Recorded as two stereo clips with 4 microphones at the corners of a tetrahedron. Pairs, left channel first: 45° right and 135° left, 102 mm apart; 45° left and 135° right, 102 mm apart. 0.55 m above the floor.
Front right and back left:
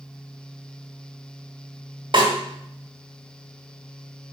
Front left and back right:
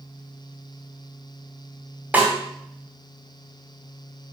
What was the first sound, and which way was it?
A snare drum, 155° left.